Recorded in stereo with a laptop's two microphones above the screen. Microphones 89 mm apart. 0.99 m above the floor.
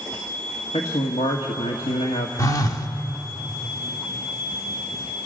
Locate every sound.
0.7 s a man speaking: 80° left, 1.5 m
2.4 s a phone buzzing: 40° left (ahead or behind), 0.9 m